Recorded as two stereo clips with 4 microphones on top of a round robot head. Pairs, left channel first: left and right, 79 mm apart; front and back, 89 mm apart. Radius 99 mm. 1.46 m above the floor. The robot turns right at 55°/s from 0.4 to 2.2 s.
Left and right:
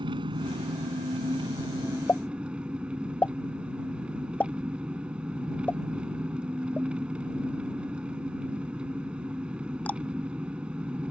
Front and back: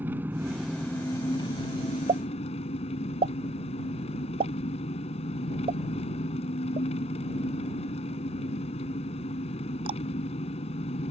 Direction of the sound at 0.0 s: 110° right.